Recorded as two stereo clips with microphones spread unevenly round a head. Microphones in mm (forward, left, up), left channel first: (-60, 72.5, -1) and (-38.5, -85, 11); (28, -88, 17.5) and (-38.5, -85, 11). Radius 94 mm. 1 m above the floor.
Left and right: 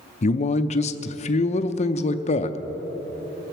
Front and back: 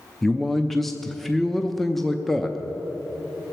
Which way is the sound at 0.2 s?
90° left.